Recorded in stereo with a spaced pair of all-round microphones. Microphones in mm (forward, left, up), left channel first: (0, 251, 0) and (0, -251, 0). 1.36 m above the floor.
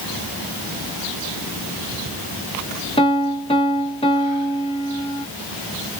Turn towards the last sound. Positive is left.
turn(degrees=10)  # may be behind; listen again after turning